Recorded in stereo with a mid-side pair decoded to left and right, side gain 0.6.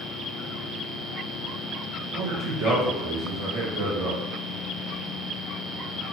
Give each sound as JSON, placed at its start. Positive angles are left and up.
{"t": 2.1, "sound": "a man speaking", "azimuth_deg": -55, "distance_m": 1.2}